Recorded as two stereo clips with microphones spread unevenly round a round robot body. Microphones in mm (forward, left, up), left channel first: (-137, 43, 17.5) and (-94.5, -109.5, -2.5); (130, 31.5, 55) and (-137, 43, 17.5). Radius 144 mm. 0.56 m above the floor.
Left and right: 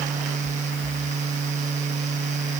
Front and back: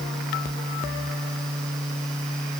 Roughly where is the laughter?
No laughter in this recording.